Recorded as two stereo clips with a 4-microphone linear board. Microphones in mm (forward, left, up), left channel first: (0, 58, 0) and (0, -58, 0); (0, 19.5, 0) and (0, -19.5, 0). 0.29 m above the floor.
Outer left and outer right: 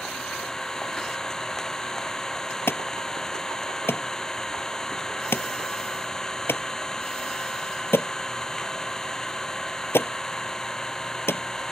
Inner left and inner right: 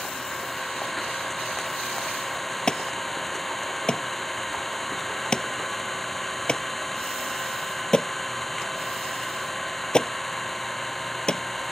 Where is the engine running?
5° left (ahead or behind).